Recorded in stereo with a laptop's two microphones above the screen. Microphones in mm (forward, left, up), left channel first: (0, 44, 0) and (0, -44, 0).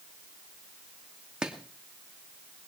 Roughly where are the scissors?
I don't hear scissors.